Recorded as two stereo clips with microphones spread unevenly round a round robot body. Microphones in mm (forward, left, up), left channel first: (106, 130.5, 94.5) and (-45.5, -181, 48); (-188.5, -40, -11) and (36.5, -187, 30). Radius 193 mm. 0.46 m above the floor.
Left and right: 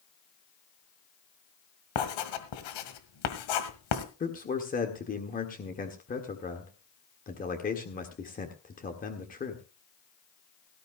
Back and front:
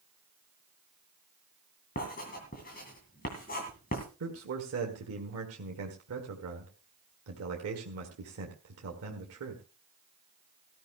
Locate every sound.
1.9 s writing: 80° left, 1.9 m
4.2 s a man speaking: 5° right, 1.7 m